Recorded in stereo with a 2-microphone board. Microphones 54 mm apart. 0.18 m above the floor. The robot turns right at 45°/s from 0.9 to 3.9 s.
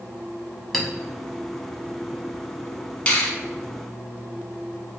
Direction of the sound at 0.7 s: Centre (ahead or behind).